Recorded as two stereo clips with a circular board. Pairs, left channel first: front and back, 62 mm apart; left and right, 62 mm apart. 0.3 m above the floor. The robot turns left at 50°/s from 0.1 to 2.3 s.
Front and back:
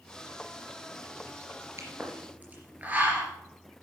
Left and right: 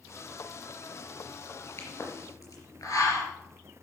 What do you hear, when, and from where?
1.8 s a pop: 140° left, 3.5 m; by 3.3 s 115° left, 3.5 m